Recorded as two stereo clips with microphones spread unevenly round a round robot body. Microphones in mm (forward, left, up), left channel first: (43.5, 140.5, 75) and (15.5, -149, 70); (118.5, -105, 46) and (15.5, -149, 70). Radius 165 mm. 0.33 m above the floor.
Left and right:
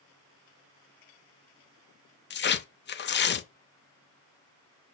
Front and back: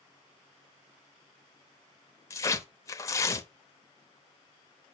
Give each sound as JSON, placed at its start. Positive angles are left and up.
{"t": 2.3, "sound": "tearing paper", "azimuth_deg": 50, "distance_m": 0.7}